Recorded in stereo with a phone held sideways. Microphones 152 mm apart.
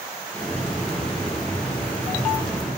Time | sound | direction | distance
0.3 | a hiss | 10° left (ahead or behind) | 2.5 m